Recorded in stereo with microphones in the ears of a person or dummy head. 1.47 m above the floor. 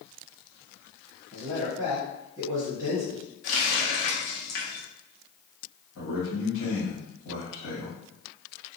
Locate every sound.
1.3 s a man speaking: 10° right (ahead or behind), 1.1 m
3.4 s a running tap: 60° left (ahead or behind), 0.8 m
6.0 s a man speaking: 70° left (ahead or behind), 1.5 m